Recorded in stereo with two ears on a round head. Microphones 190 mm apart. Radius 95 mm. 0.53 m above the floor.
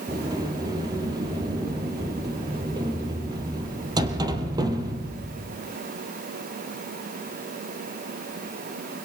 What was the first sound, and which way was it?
A sliding door, 20° right (ahead or behind).